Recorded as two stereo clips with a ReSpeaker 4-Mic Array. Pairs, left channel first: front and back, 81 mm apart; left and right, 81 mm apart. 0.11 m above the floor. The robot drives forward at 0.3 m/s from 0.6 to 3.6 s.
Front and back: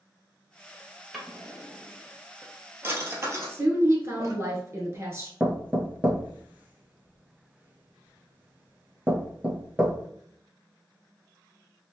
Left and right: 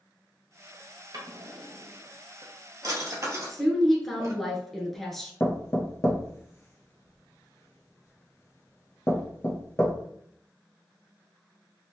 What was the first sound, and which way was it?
A drawer, 90° right.